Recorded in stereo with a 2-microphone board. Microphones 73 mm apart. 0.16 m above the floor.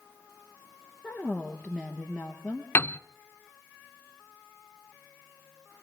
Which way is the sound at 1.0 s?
5° right (ahead or behind).